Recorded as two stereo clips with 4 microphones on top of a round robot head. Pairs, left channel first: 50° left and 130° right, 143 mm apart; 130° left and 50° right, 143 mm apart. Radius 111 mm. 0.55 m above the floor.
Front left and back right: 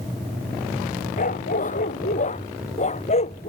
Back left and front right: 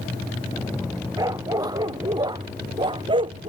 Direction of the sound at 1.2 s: 15° left.